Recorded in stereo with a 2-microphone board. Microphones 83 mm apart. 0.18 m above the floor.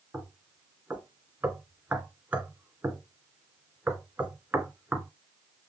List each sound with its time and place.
0.1 s knocking: 15° right (ahead or behind), 2 m